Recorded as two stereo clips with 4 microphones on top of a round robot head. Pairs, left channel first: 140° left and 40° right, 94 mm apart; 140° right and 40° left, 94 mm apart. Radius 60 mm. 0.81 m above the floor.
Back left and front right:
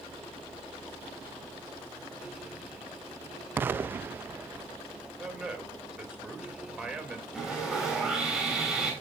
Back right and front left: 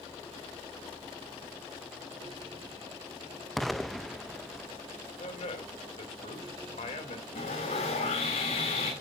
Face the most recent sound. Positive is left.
turn(degrees=-125)